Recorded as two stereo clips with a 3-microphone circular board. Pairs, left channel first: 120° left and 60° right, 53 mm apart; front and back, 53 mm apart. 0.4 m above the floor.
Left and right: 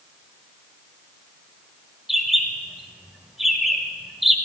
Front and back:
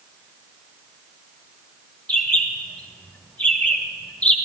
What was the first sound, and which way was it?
A bird, 25° left.